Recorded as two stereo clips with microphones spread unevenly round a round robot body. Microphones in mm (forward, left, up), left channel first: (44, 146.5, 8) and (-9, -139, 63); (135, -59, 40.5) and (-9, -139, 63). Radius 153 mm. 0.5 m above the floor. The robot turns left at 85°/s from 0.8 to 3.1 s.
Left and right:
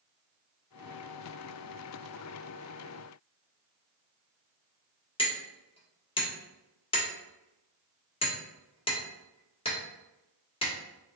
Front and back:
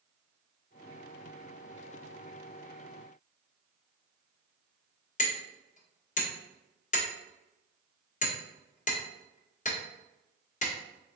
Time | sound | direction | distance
5.2 | hammering | 20° left | 1.5 m